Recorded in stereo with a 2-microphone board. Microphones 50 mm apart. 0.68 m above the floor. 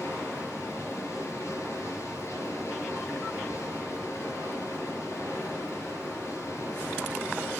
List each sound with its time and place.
0.0 s running water: 65° left (ahead or behind), 6.5 m